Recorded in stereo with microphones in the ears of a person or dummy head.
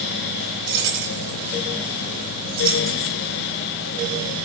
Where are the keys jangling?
70° right (ahead or behind), 2.5 m; by 3.1 s 20° right (ahead or behind), 4 m.